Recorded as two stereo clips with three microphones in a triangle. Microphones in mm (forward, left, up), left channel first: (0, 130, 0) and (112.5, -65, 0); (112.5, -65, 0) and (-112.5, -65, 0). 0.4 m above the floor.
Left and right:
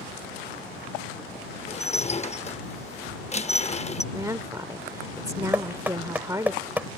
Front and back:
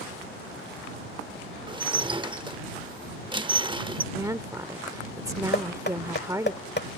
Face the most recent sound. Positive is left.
turn(degrees=20)